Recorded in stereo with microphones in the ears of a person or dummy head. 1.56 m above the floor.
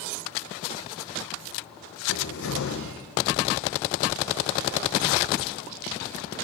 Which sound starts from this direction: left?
A cupboard door, at 2.1 s.